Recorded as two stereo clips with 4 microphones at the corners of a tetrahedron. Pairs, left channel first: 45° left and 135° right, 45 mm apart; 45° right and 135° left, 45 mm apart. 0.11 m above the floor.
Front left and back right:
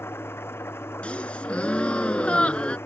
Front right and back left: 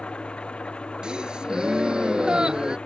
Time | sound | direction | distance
0.0 | an engine running | 20° left | ?
1.0 | a gasp | 80° left | ?